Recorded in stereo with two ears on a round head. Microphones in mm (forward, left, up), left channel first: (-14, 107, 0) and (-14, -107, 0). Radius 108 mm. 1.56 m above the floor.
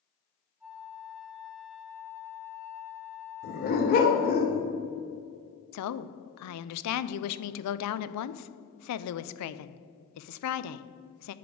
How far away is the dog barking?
About 1.7 m.